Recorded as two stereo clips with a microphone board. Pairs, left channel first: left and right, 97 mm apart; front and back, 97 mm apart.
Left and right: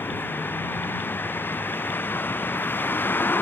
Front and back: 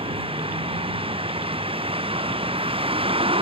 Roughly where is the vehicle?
Behind.